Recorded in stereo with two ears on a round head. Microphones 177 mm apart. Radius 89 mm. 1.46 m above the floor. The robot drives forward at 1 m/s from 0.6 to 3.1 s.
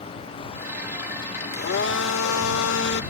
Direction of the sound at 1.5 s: 50° left (ahead or behind).